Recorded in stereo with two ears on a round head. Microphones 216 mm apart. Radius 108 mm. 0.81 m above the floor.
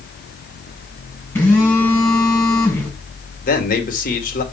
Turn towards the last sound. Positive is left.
turn(degrees=35)  # may be behind; listen again after turning